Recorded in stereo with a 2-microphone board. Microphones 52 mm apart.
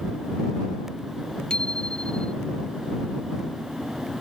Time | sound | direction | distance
1.5 | a bicycle bell | 15° left (ahead or behind) | ?